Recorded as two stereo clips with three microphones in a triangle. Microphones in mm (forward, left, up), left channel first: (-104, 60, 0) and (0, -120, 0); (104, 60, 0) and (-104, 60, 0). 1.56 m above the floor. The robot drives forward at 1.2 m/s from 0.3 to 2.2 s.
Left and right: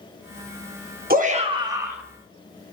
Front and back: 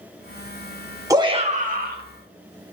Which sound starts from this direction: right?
A shout, at 1.1 s.